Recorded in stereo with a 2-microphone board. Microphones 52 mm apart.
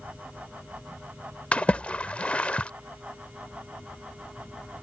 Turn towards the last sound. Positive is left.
turn(degrees=25)  # may be behind; listen again after turning